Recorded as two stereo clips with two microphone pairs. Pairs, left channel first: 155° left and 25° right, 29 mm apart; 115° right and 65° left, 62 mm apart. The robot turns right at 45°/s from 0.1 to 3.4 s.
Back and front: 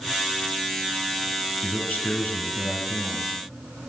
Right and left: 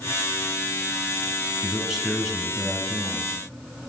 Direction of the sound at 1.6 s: 135° left.